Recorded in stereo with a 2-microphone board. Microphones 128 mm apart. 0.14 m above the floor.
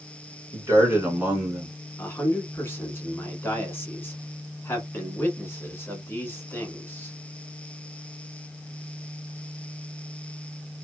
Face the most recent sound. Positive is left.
turn(degrees=20)  # may be behind; listen again after turning